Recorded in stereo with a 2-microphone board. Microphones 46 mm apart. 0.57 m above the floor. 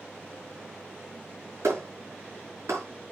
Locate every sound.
1.6 s a clap: 85° right, 7 m